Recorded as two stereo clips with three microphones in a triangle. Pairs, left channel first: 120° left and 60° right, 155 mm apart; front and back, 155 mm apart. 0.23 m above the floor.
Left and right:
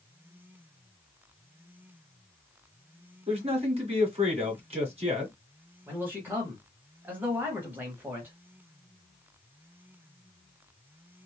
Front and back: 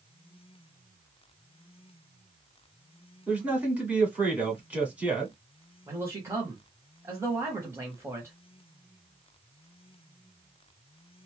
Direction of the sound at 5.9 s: 125° right.